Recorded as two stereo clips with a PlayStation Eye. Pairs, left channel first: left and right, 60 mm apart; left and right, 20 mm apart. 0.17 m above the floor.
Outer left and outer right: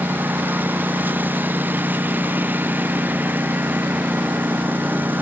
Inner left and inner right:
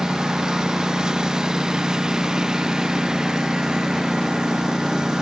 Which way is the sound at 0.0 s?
30° right (ahead or behind).